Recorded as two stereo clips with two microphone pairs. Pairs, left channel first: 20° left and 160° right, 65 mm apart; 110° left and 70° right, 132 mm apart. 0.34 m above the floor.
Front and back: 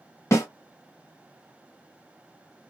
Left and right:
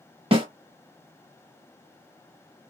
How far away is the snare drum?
About 1.0 m.